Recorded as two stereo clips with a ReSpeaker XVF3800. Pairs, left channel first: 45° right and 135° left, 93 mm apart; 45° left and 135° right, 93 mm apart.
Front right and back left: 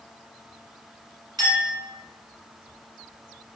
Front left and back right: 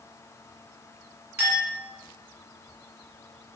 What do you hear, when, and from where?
1.4 s a clink: 160° left, 1.6 m